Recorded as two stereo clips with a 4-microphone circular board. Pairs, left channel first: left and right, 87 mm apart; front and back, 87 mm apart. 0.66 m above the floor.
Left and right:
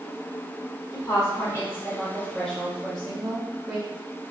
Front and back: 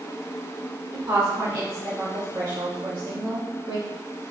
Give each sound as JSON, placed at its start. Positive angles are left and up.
{"t": 0.9, "sound": "a woman speaking", "azimuth_deg": 115, "distance_m": 1.5}